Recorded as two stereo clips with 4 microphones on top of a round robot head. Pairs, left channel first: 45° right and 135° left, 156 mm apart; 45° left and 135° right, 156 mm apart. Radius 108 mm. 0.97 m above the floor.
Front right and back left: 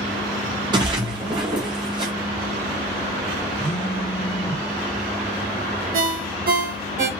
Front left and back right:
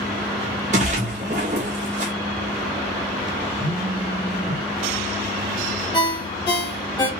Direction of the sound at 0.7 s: 170° right.